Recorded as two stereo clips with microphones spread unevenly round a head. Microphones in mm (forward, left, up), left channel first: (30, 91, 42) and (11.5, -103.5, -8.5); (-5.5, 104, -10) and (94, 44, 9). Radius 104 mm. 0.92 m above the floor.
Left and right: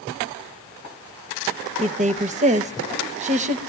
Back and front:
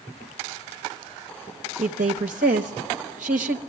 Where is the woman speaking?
50° right, 0.8 m.